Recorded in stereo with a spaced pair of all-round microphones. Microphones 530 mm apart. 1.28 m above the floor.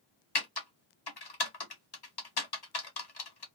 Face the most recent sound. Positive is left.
turn(degrees=45)  # may be behind; listen again after turning